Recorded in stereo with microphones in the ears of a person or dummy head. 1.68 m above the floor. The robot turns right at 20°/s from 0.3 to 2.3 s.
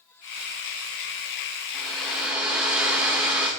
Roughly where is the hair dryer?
Centre.